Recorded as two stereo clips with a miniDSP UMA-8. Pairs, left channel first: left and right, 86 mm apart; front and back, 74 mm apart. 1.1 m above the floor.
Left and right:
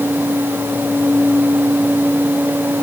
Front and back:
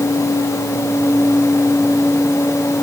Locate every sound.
Only background noise.